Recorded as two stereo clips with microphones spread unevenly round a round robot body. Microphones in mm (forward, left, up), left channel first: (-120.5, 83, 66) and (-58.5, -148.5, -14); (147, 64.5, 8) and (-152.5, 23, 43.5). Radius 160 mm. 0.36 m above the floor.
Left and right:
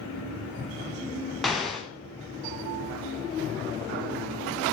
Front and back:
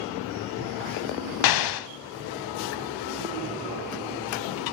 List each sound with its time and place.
1.4 s an explosion: 15° left, 0.9 m